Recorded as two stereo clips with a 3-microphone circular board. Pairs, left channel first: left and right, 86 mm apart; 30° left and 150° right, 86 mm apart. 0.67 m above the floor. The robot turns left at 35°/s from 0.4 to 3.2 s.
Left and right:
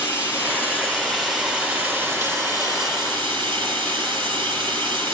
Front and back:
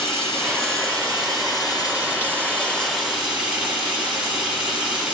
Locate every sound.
0.0 s running water: 30° left, 5 m; by 5.1 s 70° right, 5 m